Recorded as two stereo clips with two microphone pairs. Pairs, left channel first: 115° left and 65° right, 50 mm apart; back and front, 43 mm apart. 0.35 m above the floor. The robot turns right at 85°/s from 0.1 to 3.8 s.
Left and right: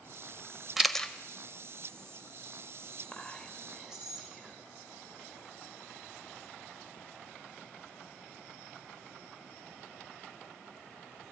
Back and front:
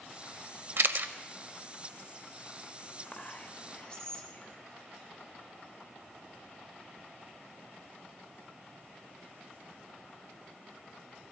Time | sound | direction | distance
0.8 | a camera shutter | 15° left | 0.5 m
3.1 | whispering | 170° left | 0.9 m